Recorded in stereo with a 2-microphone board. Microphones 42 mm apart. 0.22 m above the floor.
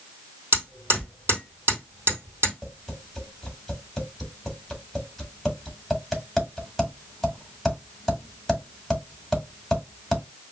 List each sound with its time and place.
0.5 s hammering: 60° right (ahead or behind), 2.5 m
2.6 s tapping: 5° left (ahead or behind), 1.6 m